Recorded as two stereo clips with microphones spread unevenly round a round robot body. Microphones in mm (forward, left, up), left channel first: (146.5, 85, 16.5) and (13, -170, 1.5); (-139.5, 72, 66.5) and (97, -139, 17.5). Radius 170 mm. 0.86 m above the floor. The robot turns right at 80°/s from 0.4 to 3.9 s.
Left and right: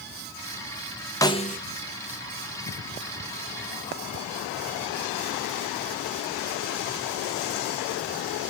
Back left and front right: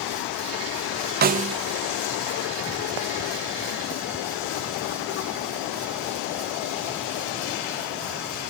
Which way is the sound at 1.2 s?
15° right.